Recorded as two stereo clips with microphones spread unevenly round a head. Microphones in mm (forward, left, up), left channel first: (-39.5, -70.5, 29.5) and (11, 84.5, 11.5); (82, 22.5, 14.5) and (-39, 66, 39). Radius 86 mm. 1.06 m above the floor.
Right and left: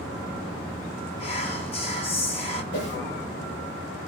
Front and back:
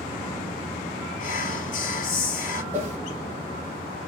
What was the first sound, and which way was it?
Whispering, 50° right.